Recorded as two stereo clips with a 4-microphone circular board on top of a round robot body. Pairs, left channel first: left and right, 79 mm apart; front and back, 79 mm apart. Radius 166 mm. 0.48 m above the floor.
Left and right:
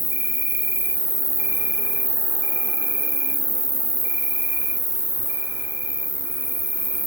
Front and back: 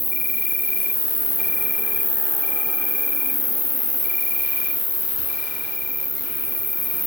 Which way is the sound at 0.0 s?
65° right.